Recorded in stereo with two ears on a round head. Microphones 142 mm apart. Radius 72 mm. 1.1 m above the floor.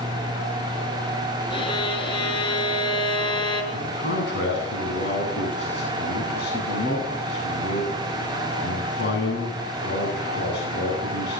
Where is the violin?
35° left (ahead or behind), 5 m.